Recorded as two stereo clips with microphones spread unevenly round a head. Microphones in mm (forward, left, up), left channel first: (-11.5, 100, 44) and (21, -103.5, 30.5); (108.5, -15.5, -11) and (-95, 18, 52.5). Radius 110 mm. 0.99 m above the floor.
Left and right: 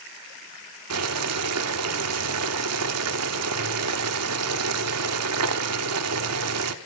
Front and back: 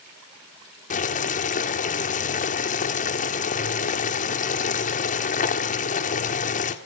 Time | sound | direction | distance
0.9 | boiling | 70° right | 1.3 m